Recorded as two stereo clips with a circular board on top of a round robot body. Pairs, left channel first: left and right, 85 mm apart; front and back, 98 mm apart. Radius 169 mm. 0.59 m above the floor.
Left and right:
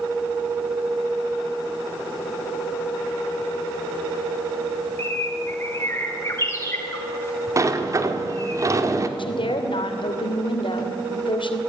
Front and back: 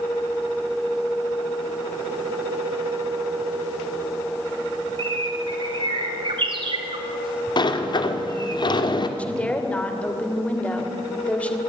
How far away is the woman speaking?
About 2.5 m.